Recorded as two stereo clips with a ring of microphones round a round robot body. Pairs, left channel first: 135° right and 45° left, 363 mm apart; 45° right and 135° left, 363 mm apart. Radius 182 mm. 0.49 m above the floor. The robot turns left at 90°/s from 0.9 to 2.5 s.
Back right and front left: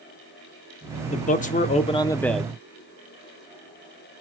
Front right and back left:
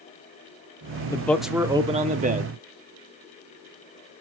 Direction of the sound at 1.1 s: 105° right.